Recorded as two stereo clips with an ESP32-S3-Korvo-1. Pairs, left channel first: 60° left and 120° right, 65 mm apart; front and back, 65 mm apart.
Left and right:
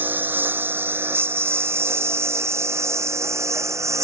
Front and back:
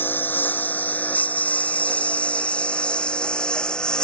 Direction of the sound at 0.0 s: 60° right.